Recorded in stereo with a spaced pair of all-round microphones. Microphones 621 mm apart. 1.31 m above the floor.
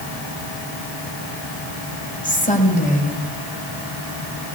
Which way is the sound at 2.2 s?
10° left (ahead or behind).